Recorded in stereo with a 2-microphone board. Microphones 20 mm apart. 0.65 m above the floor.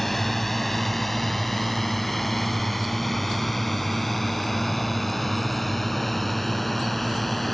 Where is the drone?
10° left (ahead or behind); by 7.5 s 5° left (ahead or behind).